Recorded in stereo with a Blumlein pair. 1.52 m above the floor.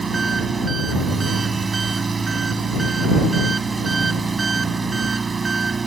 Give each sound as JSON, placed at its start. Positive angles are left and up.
{"t": 0.0, "sound": "an engine running", "azimuth_deg": -15}